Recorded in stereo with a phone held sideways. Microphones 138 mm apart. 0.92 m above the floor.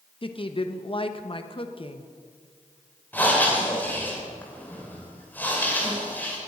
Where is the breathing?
10° left (ahead or behind), 3 m.